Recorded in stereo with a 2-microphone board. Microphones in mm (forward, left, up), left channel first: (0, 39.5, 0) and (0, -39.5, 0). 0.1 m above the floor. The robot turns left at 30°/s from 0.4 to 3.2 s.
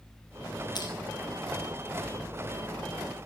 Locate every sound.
0.8 s crushing: 60° left (ahead or behind), 2.5 m; by 0.9 s 55° left (ahead or behind), 2.5 m